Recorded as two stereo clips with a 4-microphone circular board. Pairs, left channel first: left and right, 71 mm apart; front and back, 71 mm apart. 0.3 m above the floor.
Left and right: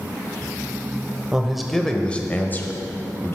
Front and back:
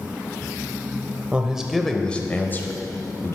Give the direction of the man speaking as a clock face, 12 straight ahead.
5 o'clock.